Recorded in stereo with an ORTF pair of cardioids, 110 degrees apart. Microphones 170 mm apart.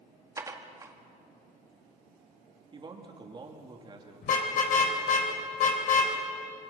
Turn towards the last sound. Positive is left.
turn(degrees=55)